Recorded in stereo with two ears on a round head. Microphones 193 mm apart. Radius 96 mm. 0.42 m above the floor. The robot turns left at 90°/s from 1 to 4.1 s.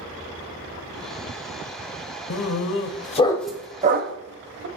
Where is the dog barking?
70° left (ahead or behind), 0.6 m; by 4.7 s 55° right (ahead or behind), 0.6 m.